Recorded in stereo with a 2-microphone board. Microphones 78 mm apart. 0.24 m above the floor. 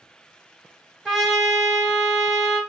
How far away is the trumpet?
About 0.8 m.